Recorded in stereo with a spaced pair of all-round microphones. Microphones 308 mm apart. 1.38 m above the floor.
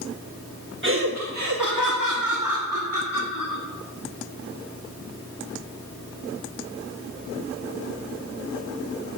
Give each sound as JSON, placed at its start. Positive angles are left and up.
{"t": 0.8, "sound": "laughter", "side_deg": -40, "distance_m": 1.4}